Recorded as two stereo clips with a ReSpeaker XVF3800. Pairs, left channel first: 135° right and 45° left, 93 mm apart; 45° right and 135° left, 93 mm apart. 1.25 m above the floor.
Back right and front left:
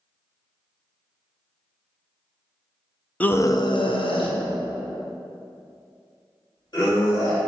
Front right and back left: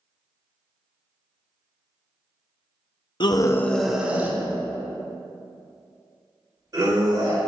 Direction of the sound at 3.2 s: 60° right.